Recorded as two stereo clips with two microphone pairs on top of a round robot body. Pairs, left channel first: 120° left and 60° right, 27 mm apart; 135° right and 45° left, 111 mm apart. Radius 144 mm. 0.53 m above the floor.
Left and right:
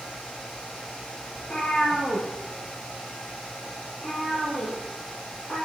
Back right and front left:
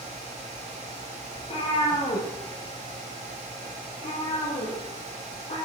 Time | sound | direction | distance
1.4 | a cat meowing | 175° right | 4.5 m